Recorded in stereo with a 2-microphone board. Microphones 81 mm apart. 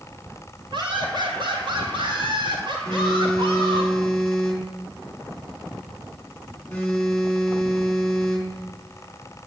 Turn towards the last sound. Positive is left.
turn(degrees=15)  # may be behind; listen again after turning